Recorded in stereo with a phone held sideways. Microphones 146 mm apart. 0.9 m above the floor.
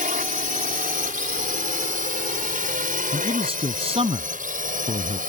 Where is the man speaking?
40° right (ahead or behind).